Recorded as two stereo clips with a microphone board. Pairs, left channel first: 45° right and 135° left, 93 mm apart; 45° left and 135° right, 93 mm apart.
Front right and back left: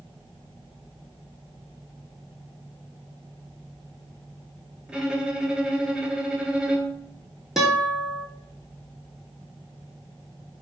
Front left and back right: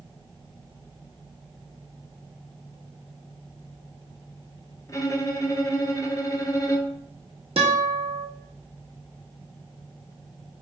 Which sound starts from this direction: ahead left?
A violin, at 4.9 s.